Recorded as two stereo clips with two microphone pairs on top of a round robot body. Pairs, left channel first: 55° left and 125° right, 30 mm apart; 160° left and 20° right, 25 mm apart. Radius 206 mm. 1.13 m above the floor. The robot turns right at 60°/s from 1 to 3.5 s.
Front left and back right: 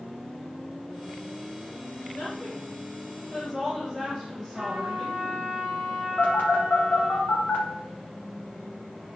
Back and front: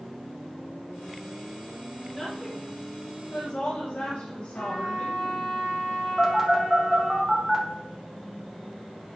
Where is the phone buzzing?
75° left, 1.9 m.